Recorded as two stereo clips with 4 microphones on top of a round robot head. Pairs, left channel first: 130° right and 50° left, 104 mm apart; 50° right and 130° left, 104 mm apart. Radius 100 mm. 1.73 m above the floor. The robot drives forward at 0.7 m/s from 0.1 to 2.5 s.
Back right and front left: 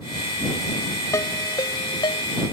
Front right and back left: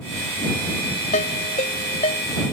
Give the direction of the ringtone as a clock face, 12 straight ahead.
2 o'clock.